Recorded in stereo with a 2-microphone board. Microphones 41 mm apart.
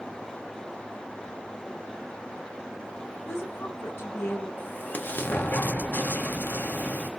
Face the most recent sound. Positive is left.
turn(degrees=50)  # may be behind; listen again after turning